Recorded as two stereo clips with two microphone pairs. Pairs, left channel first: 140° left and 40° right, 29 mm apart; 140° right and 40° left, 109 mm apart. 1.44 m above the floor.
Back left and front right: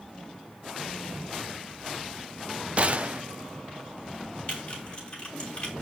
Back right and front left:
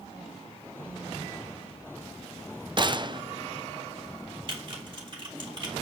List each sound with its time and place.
2.8 s a gunshot: straight ahead, 0.5 m
4.5 s typing on a keyboard: 90° left, 3.5 m